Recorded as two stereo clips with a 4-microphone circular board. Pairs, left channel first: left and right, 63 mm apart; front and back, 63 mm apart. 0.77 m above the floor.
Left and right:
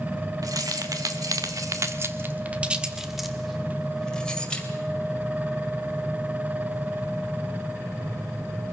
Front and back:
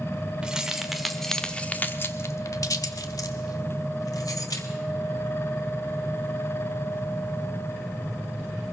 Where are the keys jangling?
105° right, 2 m; by 4.7 s 20° left, 3 m.